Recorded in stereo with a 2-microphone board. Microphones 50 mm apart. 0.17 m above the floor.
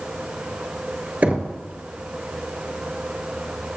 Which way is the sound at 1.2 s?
30° right (ahead or behind).